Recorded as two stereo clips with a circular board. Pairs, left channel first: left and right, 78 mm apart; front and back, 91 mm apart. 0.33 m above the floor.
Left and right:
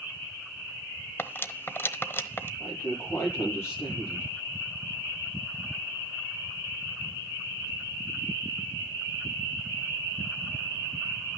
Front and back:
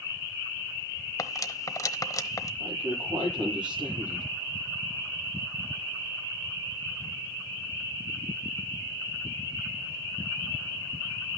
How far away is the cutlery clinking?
About 1.0 m.